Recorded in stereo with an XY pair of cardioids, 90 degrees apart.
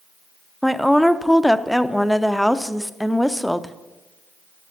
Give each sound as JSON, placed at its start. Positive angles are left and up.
{"t": 0.6, "sound": "a woman speaking", "azimuth_deg": 5, "distance_m": 0.6}